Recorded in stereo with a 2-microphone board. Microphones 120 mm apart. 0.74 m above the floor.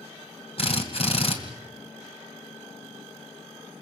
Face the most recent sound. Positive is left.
turn(degrees=55)  # may be behind; listen again after turning